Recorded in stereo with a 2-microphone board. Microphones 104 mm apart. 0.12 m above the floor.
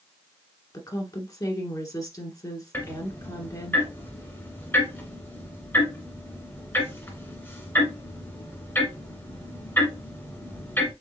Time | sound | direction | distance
0.7 | a woman speaking | 35° left (ahead or behind) | 1.5 m
2.7 | ticking | 20° left (ahead or behind) | 1.6 m